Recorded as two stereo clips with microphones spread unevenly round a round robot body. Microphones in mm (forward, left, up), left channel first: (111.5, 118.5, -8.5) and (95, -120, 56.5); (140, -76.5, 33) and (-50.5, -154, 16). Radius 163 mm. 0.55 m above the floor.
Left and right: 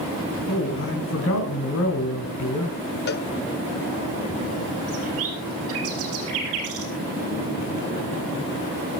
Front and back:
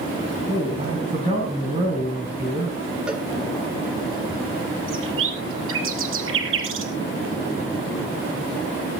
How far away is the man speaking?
About 4 m.